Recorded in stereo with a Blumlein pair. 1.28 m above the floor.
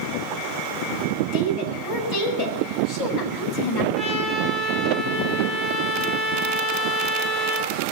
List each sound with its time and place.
1.3 s a woman speaking: 45° left, 5 m
4.0 s a trumpet: 20° left, 4.5 m